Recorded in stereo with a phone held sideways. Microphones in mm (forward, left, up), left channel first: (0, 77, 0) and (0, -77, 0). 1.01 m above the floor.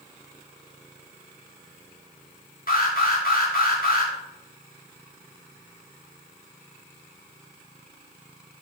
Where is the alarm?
70° left (ahead or behind), 2.5 m.